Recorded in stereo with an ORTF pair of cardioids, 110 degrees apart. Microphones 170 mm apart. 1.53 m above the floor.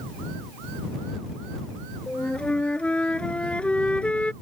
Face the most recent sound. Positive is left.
turn(degrees=5)